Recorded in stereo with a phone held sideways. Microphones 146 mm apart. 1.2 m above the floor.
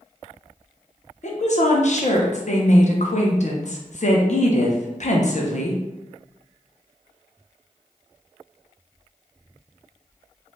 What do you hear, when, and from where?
1.2 s a woman speaking: 55° left (ahead or behind), 0.6 m